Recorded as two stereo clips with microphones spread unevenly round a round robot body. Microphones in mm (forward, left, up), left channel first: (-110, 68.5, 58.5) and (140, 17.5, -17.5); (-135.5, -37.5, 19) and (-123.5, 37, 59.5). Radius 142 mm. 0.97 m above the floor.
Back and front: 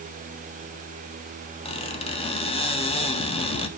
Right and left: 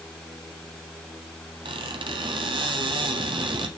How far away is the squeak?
About 1.4 m.